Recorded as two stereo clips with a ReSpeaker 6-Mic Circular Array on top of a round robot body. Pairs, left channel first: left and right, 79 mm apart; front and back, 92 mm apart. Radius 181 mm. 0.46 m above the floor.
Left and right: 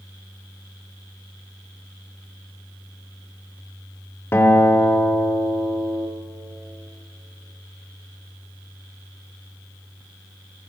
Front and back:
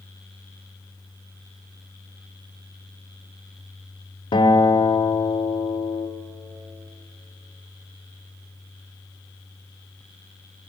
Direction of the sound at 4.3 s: 30° left.